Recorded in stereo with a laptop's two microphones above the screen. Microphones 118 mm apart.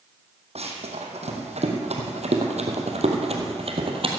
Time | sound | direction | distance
0.6 | running footsteps | 60° right (ahead or behind) | 3 m